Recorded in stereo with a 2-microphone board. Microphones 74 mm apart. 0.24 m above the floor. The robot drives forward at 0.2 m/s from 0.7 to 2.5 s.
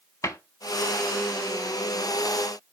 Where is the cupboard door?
50° left (ahead or behind), 0.6 m.